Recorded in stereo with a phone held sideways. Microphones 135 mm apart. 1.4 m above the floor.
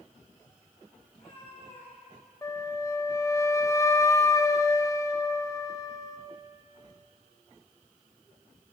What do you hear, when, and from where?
1.1 s a cat meowing: 40° left (ahead or behind), 6.5 m
2.4 s a flute: 20° left (ahead or behind), 0.6 m